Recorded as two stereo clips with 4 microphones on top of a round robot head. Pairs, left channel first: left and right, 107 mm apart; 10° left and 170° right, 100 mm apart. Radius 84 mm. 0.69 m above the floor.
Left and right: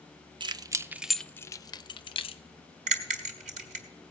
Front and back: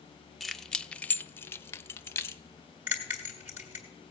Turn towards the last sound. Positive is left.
turn(degrees=-95)